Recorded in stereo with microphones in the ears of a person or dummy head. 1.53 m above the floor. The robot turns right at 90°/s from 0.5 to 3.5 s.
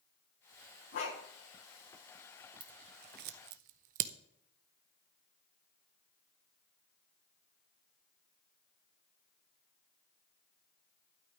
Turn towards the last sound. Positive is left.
turn(degrees=-45)  # may be behind; listen again after turning